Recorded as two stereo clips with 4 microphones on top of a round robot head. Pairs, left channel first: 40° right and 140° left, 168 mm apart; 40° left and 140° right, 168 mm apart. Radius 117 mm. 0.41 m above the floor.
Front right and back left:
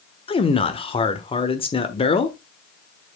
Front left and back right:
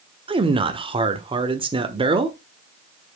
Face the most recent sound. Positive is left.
turn(degrees=-90)